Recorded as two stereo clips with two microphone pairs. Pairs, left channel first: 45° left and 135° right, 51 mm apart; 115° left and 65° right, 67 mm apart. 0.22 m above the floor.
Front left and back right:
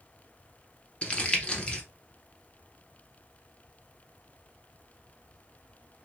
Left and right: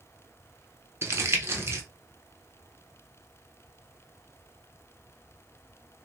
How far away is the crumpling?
About 0.8 m.